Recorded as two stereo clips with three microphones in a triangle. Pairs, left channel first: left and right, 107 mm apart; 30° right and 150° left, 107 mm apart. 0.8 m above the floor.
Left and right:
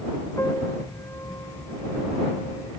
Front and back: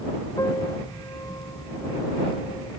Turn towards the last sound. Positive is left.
turn(degrees=25)